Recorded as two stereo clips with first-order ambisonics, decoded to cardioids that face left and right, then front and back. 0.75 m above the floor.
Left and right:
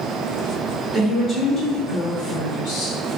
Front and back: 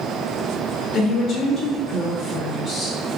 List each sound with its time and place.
0.9 s a woman speaking: 20° right, 0.6 m; by 3.0 s 100° left, 1.5 m